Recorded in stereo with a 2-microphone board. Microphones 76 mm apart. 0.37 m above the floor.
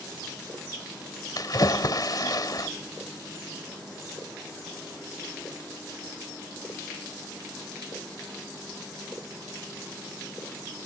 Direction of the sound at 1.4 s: 55° left (ahead or behind).